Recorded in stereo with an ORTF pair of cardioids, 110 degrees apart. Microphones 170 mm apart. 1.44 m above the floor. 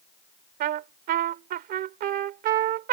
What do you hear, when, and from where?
0.6 s a trumpet: 70° right